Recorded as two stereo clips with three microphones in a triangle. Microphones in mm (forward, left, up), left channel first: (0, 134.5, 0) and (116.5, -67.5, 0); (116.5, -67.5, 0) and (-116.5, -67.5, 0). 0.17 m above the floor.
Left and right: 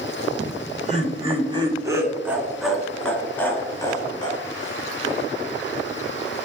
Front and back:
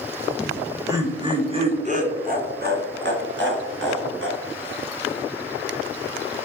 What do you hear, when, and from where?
0.4 s laughter: 95° right, 2.0 m; by 4.8 s 175° right, 3 m